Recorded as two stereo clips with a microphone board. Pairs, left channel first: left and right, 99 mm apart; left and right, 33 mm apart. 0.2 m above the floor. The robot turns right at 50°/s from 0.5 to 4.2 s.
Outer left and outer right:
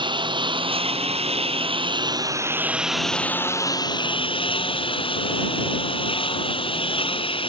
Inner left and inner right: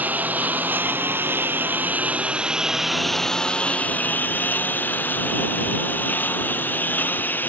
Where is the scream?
I don't hear a scream.